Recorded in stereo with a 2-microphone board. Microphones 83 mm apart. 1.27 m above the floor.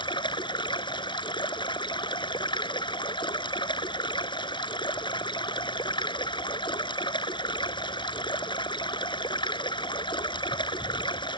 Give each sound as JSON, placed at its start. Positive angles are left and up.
{"t": 0.0, "sound": "running water", "side_deg": 75}